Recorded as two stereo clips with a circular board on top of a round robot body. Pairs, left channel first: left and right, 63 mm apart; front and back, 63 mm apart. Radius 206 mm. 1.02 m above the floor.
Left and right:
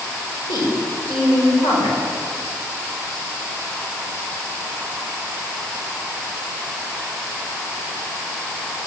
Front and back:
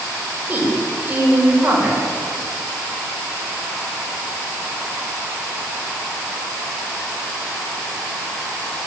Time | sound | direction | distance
0.5 | a woman speaking | 115° left | 5.5 m